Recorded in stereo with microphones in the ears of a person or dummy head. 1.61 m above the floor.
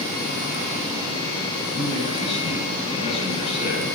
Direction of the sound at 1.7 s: 35° left (ahead or behind).